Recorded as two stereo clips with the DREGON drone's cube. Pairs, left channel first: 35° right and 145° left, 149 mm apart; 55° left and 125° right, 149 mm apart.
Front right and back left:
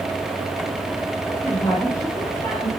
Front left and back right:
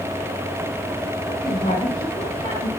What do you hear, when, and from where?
1.3 s a woman speaking: 30° left, 5.5 m